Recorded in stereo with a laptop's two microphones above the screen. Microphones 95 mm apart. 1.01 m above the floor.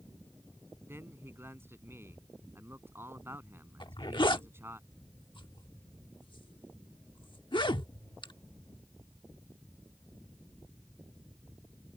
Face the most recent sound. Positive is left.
turn(degrees=60)  # may be behind; listen again after turning